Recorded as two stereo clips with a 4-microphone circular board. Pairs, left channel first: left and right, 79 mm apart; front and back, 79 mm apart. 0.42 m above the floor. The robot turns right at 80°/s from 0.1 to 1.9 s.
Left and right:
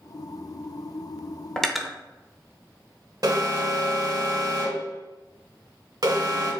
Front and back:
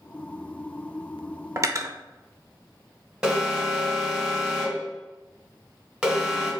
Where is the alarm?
105° right, 1.3 m.